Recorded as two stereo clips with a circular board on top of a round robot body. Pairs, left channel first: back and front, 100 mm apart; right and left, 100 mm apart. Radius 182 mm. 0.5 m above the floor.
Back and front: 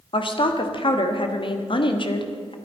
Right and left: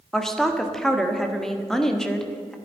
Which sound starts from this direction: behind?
A woman speaking, at 0.1 s.